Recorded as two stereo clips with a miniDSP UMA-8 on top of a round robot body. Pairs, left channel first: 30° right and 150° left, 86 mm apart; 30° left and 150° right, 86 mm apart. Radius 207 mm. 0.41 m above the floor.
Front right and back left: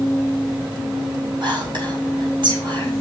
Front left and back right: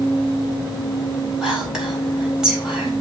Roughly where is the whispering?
Behind left.